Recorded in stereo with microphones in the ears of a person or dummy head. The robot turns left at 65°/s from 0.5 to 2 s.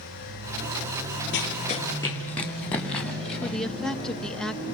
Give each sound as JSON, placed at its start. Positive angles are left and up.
{"t": 1.3, "sound": "running footsteps", "side_deg": 55, "distance_m": 5.0}
{"t": 3.4, "sound": "a woman speaking", "side_deg": 0, "distance_m": 0.9}